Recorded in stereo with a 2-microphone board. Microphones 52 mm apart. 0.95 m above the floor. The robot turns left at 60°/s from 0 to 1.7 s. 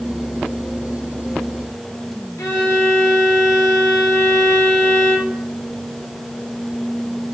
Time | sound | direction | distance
2.4 | a violin | 80° left | 1.2 m